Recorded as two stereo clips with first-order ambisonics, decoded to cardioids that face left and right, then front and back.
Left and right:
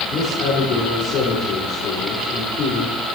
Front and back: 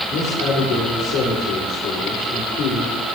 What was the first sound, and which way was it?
A man speaking, 40° left.